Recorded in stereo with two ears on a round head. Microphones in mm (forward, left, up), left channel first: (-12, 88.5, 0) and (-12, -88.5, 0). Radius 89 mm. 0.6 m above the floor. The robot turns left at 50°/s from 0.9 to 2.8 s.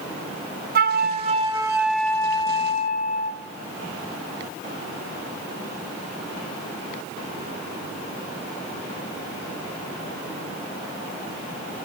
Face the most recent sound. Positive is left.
turn(degrees=140)